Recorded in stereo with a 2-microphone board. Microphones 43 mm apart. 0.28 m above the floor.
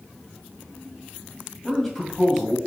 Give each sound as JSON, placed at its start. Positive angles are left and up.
{"t": 1.6, "sound": "a man speaking", "side_deg": 0, "distance_m": 1.2}